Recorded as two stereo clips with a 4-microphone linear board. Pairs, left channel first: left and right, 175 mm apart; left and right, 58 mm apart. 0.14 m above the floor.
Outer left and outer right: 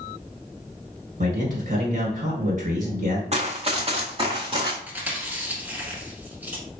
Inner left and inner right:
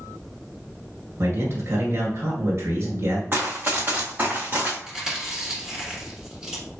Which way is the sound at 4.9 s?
10° right (ahead or behind).